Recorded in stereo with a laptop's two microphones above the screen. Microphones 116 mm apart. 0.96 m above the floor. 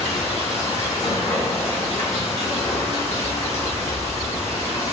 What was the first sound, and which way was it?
Running water, 75° left (ahead or behind).